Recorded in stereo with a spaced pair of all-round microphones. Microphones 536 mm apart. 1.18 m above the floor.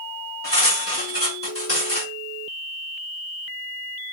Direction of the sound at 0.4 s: 25° left (ahead or behind).